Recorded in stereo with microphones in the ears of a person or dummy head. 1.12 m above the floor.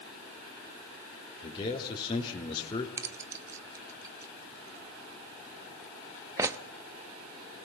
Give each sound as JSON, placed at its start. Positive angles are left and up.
{"t": 1.4, "sound": "a man speaking", "side_deg": 25, "distance_m": 3.5}
{"t": 3.0, "sound": "keys jangling", "side_deg": -20, "distance_m": 1.0}